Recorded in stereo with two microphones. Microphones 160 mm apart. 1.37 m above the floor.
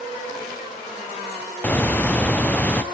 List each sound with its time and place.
1.6 s a bird: 10° left (ahead or behind), 0.9 m